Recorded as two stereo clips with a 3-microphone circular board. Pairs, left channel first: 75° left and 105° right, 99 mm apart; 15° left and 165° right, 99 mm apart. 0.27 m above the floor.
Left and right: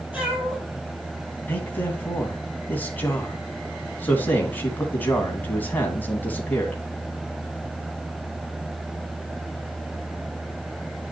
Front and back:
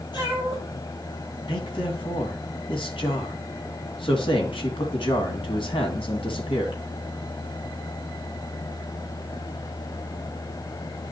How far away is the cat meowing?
About 4 m.